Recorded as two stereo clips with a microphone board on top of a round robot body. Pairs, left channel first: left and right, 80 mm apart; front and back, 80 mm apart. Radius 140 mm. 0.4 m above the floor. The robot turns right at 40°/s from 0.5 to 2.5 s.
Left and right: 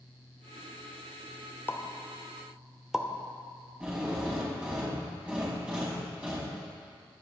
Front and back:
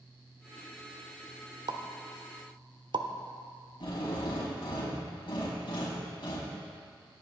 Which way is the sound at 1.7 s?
155° left.